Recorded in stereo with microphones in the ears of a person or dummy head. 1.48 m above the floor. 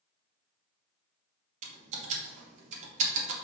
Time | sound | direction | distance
1.6 | typing on a keyboard | 40° right (ahead or behind) | 1.1 m